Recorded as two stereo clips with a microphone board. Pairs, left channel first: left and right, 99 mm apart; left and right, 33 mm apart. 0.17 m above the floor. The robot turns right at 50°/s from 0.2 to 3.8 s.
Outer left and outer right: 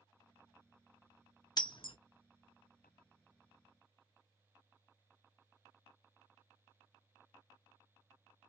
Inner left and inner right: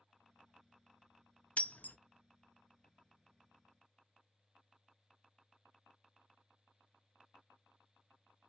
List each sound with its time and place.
1.6 s breaking glass: 45° left (ahead or behind), 0.7 m; by 2.0 s 60° left (ahead or behind), 0.7 m